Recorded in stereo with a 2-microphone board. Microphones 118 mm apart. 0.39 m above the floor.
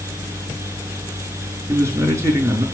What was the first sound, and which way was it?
A man speaking, 25° right (ahead or behind).